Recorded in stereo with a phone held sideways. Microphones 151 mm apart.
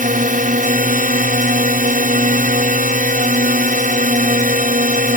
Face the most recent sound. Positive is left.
turn(degrees=-65)  # may be behind; listen again after turning